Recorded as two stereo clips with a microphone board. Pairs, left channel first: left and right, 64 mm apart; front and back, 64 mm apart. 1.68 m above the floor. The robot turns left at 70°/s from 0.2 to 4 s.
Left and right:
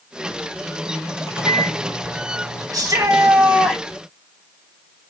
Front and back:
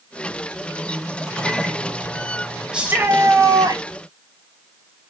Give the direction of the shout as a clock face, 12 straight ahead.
3 o'clock.